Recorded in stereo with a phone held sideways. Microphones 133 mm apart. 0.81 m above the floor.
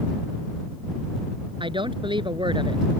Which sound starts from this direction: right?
A woman speaking, at 1.6 s.